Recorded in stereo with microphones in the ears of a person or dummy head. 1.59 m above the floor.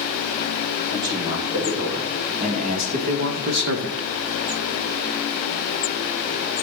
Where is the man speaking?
30° right (ahead or behind), 4 m; by 4.1 s 70° right (ahead or behind), 0.8 m.